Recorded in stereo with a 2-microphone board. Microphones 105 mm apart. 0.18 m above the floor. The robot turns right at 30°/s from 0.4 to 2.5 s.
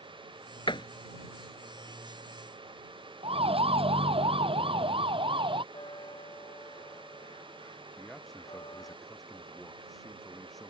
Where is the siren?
65° right (ahead or behind); by 5.6 s 55° right (ahead or behind).